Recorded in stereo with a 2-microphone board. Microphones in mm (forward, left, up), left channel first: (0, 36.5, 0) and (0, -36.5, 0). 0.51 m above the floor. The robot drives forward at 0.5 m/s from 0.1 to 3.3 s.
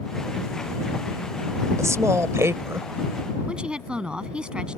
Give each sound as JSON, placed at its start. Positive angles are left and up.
{"t": 1.8, "sound": "a woman speaking", "side_deg": -45}
{"t": 3.5, "sound": "a woman speaking", "side_deg": -10}